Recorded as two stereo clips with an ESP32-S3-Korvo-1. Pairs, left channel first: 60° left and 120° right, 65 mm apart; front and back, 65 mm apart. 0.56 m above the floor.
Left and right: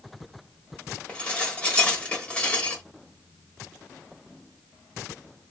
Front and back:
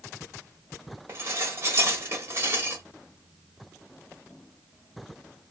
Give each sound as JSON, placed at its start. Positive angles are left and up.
{"t": 1.1, "sound": "dishes clattering", "azimuth_deg": 130, "distance_m": 1.4}